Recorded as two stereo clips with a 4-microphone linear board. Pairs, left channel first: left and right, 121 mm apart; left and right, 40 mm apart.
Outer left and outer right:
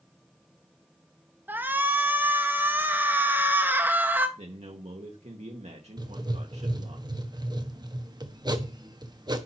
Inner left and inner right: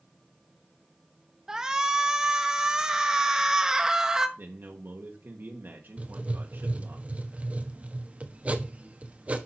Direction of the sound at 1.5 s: 15° right (ahead or behind).